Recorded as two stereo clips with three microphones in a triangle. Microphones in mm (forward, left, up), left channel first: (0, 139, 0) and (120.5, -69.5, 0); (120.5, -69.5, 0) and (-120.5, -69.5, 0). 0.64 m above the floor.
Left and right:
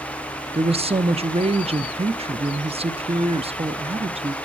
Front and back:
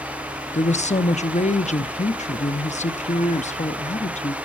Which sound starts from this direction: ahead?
A woman speaking, at 0.5 s.